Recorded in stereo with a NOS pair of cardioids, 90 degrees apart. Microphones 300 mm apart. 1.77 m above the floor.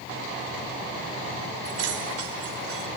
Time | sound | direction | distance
1.6 | keys jangling | 60° right | 5.5 m